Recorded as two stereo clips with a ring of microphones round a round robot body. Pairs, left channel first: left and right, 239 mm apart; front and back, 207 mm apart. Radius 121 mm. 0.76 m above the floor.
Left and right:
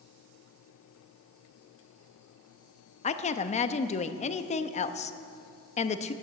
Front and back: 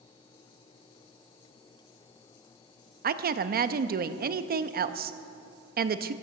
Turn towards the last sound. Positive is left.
turn(degrees=145)